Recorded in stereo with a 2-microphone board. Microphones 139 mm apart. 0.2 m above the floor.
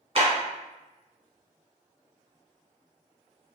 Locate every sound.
0.1 s a clap: 45° right (ahead or behind), 1.3 m